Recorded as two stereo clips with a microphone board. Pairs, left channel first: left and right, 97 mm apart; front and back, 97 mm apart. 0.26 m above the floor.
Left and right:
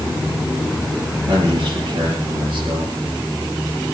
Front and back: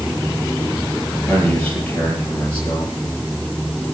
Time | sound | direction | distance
1.3 | a man speaking | 75° right | 6 m